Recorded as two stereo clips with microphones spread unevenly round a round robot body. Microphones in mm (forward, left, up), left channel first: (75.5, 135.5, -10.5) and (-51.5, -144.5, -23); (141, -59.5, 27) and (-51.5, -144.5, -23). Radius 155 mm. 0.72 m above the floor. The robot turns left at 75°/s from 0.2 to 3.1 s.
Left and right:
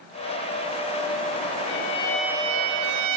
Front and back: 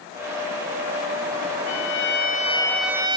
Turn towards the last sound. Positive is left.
turn(degrees=-95)